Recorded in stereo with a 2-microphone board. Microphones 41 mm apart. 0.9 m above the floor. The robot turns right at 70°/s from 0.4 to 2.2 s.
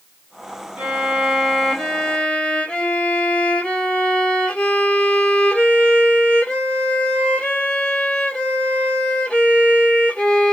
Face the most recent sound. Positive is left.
turn(degrees=30)